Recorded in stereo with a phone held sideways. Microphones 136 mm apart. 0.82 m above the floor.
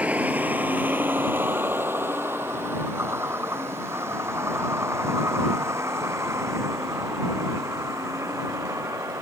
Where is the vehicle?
10° right (ahead or behind); by 9.2 s 20° right (ahead or behind).